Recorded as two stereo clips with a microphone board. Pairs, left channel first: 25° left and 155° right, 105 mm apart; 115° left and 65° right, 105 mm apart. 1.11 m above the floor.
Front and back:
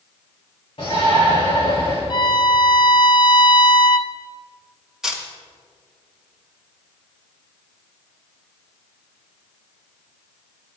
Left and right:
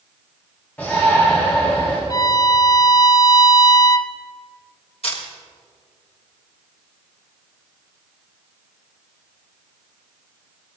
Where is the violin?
60° left, 0.6 m.